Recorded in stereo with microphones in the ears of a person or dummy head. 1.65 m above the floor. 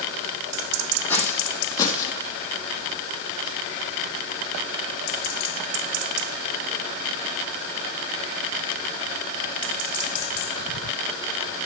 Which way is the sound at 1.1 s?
10° left (ahead or behind).